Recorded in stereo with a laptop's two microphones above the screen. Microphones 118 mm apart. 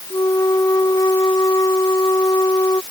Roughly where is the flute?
Left.